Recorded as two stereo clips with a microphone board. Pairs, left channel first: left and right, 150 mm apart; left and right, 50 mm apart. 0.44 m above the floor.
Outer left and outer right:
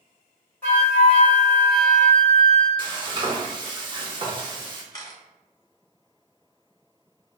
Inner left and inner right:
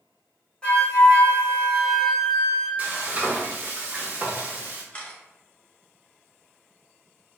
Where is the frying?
35° right (ahead or behind), 0.6 m.